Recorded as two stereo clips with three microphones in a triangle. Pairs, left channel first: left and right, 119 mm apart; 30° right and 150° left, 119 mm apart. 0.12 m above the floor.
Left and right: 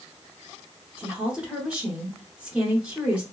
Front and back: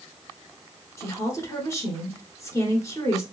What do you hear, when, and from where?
1.0 s a woman speaking: 25° right, 1.1 m